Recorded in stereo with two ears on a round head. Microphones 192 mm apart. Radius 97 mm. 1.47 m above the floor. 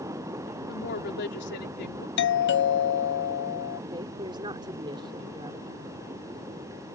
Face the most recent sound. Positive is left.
turn(degrees=-20)  # may be behind; listen again after turning